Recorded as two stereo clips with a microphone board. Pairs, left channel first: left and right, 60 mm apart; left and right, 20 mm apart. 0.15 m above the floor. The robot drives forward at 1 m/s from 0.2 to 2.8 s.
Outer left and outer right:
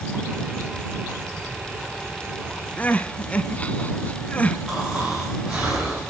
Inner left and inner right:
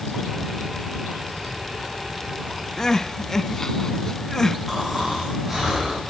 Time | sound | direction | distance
2.8 | crying | 25° left (ahead or behind) | 0.7 m
4.7 | snoring | 15° right (ahead or behind) | 7.5 m